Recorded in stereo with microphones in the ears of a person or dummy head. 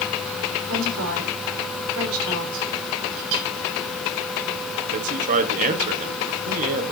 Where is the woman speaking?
75° right (ahead or behind), 5 m.